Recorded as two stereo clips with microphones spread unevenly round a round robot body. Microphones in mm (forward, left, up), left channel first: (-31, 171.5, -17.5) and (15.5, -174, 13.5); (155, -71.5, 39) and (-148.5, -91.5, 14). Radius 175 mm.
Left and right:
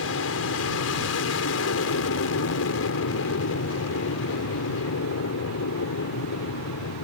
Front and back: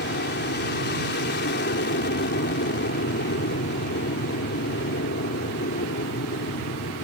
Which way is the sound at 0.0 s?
60° left.